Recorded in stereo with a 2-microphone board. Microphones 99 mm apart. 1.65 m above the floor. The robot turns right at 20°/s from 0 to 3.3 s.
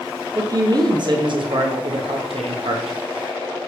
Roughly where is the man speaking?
Behind right.